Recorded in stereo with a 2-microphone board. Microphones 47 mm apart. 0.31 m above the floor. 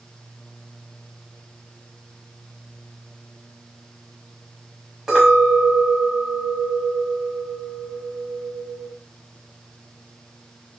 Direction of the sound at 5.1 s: 10° right (ahead or behind).